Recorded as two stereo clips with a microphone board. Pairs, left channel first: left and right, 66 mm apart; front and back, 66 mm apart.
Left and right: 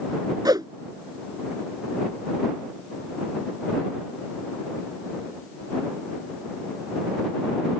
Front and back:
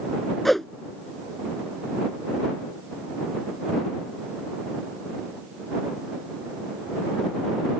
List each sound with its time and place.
0.5 s a whoosh: 90° right